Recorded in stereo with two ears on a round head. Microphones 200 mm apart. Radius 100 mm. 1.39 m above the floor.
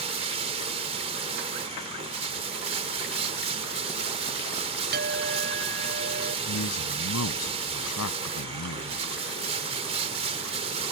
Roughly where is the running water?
Right.